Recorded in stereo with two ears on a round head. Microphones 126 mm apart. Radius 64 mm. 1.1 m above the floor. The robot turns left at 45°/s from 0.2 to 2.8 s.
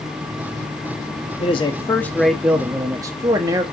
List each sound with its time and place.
1.4 s a man speaking: 40° left, 1.3 m; by 3.6 s 20° right, 1.3 m